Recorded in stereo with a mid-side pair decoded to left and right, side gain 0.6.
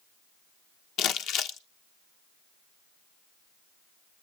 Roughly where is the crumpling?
Ahead left.